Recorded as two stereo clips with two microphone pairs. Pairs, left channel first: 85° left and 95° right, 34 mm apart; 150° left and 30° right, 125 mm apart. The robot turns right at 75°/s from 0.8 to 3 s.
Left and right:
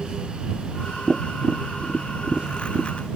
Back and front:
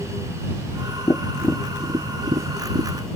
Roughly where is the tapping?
Behind right.